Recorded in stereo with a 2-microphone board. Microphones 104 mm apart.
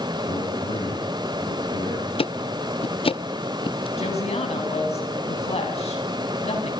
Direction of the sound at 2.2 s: 60° left (ahead or behind).